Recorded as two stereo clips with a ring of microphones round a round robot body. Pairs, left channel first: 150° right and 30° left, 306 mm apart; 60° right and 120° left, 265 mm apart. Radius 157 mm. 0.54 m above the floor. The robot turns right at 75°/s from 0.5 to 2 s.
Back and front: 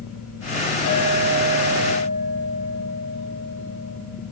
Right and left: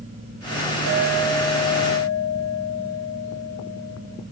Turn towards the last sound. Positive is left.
turn(degrees=-110)